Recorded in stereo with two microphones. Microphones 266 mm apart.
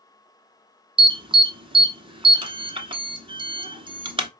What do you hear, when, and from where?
1.0 s an alarm: 20° right (ahead or behind), 0.8 m